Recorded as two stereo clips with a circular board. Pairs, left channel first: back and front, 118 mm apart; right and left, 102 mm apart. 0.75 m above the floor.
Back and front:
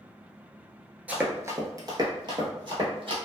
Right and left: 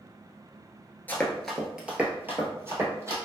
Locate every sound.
1.1 s running footsteps: 55° right, 0.7 m; by 3.2 s 35° left, 1.4 m